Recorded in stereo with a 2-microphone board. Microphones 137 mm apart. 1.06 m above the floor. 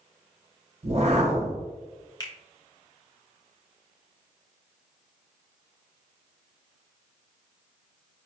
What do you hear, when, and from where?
0.8 s a whoosh: 50° right (ahead or behind), 0.6 m
2.2 s a finger snap: 30° left (ahead or behind), 0.7 m